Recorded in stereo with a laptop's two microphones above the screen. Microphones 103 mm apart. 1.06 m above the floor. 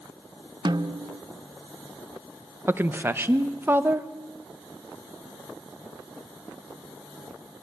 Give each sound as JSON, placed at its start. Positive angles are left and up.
{"t": 0.7, "sound": "a snare drum", "side_deg": -45, "distance_m": 0.7}
{"t": 2.7, "sound": "a woman speaking", "side_deg": -20, "distance_m": 0.8}